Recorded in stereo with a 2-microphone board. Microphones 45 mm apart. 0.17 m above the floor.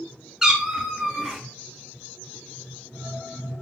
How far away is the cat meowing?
About 1.0 m.